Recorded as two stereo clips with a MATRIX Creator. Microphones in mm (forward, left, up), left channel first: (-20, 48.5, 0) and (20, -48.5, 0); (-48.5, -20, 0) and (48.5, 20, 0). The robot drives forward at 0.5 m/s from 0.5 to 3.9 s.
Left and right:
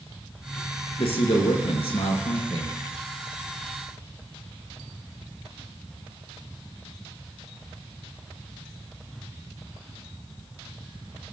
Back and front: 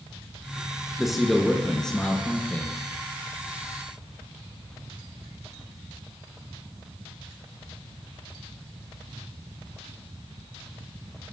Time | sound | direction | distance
1.0 | a man speaking | 110° left | 2.5 m